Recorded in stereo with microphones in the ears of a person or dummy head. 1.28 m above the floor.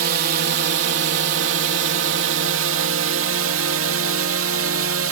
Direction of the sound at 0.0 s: 60° right (ahead or behind).